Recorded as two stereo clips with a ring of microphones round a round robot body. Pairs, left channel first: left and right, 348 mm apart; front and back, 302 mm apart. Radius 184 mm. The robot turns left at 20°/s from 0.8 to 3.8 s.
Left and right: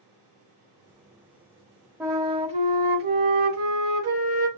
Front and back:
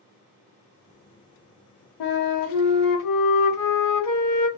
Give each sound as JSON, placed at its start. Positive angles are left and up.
{"t": 2.0, "sound": "a flute", "azimuth_deg": -5, "distance_m": 0.7}